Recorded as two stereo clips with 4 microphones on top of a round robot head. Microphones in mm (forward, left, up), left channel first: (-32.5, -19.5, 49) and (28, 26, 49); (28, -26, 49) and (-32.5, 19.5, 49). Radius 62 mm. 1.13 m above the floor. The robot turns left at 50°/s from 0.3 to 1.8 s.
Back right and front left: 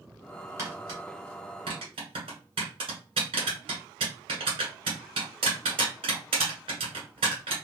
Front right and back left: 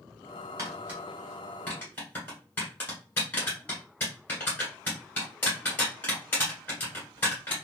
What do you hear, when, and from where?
0.6 s tapping: 90° left, 1.4 m; by 7.5 s 25° left, 1.4 m